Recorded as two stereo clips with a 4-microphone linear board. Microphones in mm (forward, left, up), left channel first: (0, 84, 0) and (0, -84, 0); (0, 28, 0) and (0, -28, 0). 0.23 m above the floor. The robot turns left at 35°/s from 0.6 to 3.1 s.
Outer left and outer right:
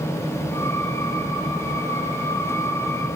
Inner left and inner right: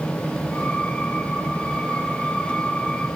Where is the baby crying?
I don't hear a baby crying.